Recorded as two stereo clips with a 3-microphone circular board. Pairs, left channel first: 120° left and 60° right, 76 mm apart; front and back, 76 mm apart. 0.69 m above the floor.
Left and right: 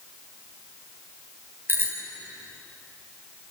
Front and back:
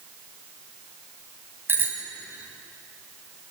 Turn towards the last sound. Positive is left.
turn(degrees=-120)